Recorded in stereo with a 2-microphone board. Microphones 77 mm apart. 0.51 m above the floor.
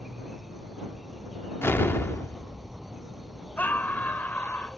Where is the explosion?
30° left (ahead or behind).